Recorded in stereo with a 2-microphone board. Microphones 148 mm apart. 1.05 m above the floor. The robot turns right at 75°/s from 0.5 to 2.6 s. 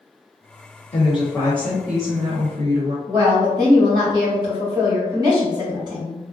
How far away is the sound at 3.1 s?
About 1.9 m.